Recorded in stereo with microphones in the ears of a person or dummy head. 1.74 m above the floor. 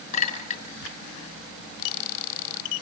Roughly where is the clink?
Left.